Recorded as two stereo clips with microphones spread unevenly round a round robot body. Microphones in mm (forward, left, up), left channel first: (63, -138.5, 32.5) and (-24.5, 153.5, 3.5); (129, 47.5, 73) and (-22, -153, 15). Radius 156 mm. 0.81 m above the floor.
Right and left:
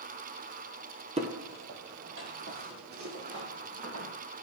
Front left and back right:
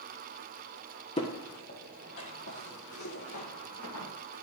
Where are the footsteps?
40° left, 0.9 m; by 4.1 s 65° left, 2 m.